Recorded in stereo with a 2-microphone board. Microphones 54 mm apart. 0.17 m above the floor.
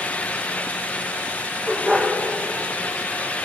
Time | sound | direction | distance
1.7 | a dog barking | 10° left (ahead or behind) | 6 m